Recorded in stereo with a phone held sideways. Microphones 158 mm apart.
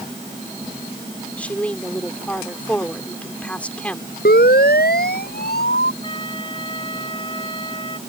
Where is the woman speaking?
10° left (ahead or behind).